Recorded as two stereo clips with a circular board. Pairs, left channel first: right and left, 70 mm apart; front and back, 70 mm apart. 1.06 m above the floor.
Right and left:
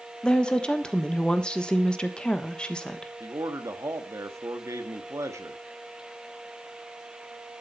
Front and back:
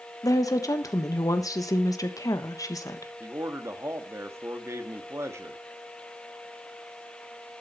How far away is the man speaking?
About 1.5 m.